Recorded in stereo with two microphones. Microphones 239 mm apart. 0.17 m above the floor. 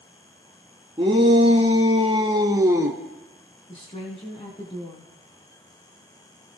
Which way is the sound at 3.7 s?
25° left (ahead or behind).